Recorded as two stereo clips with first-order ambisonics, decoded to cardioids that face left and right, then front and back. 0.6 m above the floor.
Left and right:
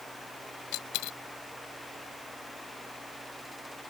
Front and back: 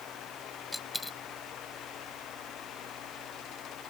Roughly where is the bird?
No bird in this recording.